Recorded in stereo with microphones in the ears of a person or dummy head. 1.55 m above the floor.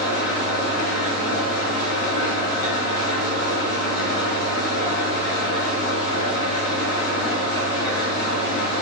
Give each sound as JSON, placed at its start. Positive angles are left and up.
{"t": 0.0, "sound": "an engine running", "side_deg": 60, "distance_m": 1.8}